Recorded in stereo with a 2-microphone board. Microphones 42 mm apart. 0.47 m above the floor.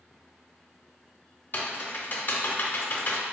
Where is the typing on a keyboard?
45° left (ahead or behind), 0.5 m.